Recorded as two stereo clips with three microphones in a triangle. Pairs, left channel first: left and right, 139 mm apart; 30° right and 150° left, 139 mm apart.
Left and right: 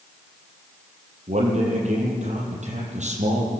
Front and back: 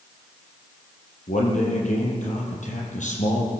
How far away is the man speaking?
About 7 m.